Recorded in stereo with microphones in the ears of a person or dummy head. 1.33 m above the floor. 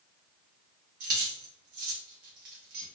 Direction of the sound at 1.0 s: 50° right (ahead or behind).